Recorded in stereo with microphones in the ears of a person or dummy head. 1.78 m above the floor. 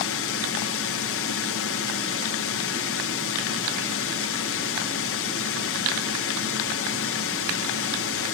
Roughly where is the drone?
Left.